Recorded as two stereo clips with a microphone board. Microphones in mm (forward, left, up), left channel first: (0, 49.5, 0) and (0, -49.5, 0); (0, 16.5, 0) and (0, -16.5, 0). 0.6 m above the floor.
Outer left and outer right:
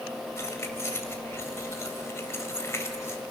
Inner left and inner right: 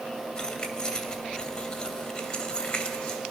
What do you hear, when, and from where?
0.4 s keys jangling: 25° left (ahead or behind), 2 m